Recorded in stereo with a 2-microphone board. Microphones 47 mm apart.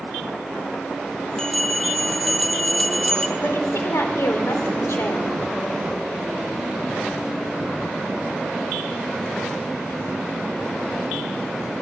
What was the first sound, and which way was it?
A bell, 15° left (ahead or behind).